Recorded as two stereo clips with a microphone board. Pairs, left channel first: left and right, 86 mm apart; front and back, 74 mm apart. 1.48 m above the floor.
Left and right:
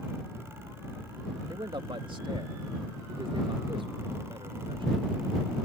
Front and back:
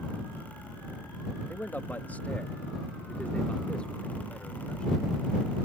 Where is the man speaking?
65° right; by 5.0 s 80° right.